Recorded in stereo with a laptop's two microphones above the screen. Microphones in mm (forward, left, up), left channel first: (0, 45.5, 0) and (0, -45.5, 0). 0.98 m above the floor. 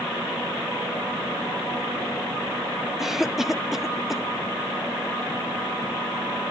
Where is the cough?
5° right (ahead or behind), 0.5 m.